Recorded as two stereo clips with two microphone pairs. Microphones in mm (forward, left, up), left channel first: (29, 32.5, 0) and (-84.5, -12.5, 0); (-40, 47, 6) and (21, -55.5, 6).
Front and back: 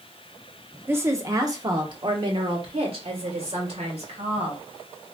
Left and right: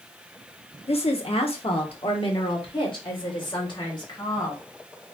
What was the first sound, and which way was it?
A woman speaking, 135° left.